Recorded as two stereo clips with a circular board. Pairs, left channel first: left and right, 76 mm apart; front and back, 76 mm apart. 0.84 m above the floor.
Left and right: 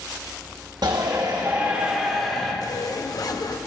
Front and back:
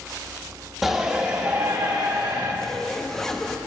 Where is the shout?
100° right, 1.6 m; by 2.5 s 175° left, 2.5 m.